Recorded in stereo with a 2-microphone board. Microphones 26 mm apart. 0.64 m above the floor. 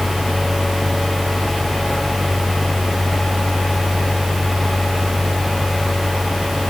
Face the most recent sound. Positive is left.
No sound to turn to.